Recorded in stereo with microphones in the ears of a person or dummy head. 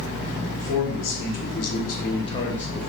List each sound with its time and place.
0.6 s a man speaking: 60° left (ahead or behind), 1.2 m; by 2.9 s centre (ahead or behind), 0.6 m